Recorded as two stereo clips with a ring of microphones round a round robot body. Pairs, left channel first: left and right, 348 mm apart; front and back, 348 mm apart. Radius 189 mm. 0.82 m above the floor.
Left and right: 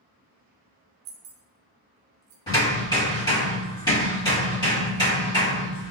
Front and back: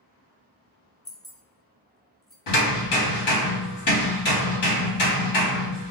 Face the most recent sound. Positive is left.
turn(degrees=15)